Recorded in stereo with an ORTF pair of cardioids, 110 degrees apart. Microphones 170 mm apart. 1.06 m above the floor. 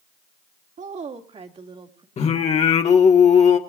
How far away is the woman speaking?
About 2.5 m.